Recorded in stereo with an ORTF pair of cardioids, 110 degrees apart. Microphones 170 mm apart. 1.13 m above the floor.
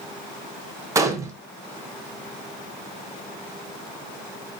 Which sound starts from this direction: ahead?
A gunshot, at 0.9 s.